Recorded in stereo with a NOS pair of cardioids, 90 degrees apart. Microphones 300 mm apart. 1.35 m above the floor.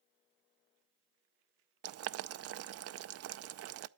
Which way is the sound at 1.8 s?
50° right.